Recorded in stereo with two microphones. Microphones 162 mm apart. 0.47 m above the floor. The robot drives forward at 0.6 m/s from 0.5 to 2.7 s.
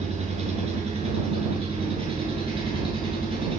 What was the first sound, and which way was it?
An engine running, 40° right (ahead or behind).